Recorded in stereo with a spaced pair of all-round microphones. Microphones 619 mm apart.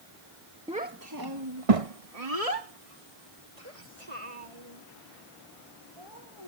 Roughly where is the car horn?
I don't hear a car horn.